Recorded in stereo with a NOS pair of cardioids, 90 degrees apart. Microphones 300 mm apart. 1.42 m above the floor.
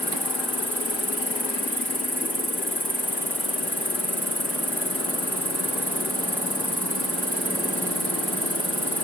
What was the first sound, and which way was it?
An insect, 5° right.